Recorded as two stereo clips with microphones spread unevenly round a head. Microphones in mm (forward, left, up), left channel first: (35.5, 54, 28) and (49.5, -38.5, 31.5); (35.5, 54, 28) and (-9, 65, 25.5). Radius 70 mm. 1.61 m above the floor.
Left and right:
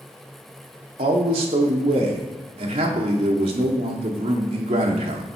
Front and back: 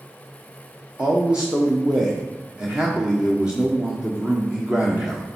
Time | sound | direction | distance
1.0 | a man speaking | 115° right | 1.1 m